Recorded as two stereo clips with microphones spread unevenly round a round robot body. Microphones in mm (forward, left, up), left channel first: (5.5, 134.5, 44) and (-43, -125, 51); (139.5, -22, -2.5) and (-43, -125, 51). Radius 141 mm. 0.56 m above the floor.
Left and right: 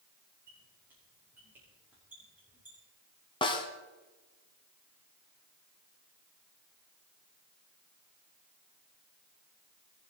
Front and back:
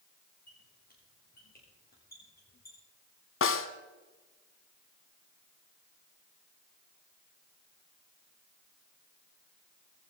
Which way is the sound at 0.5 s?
15° right.